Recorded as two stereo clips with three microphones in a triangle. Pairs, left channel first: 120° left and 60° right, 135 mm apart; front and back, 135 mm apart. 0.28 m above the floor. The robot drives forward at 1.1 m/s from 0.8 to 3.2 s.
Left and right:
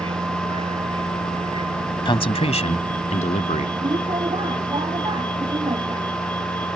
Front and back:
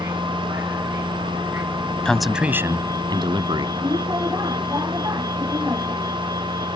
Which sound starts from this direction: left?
A man speaking, at 2.0 s.